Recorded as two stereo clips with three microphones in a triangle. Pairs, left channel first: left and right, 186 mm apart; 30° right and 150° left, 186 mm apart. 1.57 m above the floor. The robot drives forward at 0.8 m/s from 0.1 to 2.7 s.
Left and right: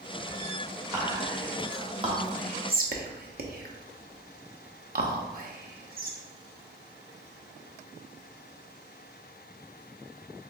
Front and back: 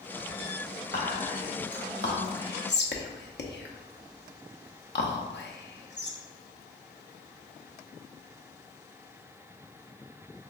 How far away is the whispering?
About 2.0 m.